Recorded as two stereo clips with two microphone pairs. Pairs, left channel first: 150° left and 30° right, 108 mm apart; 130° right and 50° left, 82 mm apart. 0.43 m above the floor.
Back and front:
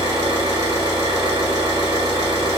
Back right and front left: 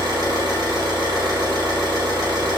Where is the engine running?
15° left, 1.3 m.